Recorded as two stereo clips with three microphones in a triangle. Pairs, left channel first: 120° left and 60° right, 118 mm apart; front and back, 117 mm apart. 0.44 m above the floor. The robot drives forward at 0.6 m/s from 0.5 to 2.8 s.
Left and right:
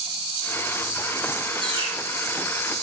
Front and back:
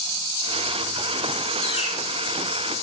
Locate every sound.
1.6 s a bird: 20° right, 8 m